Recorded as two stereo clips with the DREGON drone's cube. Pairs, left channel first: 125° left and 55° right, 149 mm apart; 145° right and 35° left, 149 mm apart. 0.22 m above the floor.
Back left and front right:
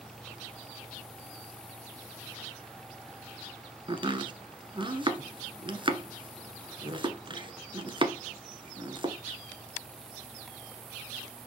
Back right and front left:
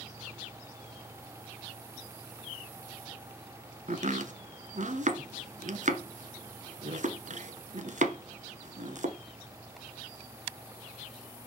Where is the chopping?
Straight ahead, 1.0 m.